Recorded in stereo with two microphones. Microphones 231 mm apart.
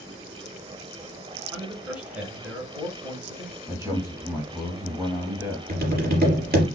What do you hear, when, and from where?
1.5 s a man speaking: 5° right (ahead or behind), 1.3 m
3.7 s a man speaking: 15° right (ahead or behind), 1.8 m
5.7 s tapping: 45° right (ahead or behind), 3.5 m